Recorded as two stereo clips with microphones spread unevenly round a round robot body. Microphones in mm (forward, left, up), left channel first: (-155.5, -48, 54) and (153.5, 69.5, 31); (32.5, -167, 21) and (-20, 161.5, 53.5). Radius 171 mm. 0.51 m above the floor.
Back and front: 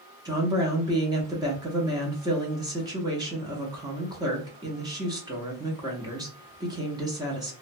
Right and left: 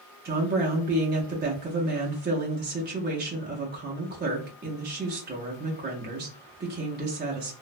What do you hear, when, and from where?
0.2 s a woman speaking: 70° left, 0.7 m